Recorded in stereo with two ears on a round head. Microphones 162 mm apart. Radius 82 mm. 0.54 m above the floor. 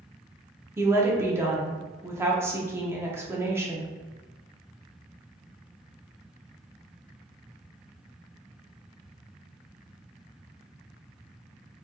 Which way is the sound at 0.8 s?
15° right (ahead or behind).